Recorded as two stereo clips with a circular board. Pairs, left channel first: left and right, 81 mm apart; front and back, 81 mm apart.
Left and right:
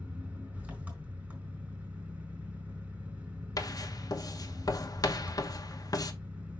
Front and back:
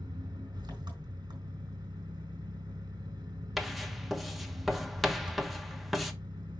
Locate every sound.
0.0 s an engine running: 160° right, 3.5 m
3.6 s writing: 95° left, 1.0 m